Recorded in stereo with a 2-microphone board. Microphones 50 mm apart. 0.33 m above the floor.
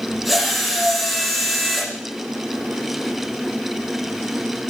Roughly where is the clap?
I don't hear a clap.